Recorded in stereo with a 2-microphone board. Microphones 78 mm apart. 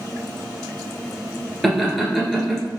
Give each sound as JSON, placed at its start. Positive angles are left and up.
{"t": 1.6, "sound": "laughter", "side_deg": 0, "distance_m": 1.5}